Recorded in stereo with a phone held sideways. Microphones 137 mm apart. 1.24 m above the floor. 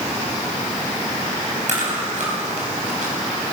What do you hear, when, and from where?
1.7 s chewing: 60° right (ahead or behind), 4.5 m